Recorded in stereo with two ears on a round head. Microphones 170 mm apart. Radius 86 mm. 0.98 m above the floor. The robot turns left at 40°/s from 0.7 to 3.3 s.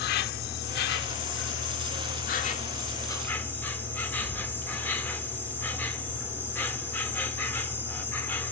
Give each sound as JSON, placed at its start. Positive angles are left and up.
{"t": 0.0, "sound": "an insect", "azimuth_deg": 115, "distance_m": 1.0}